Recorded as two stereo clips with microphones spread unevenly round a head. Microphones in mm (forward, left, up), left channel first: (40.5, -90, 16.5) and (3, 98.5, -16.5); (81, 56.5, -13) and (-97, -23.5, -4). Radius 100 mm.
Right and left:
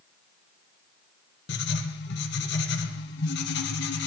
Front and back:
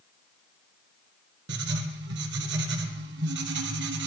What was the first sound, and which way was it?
Writing, 120° right.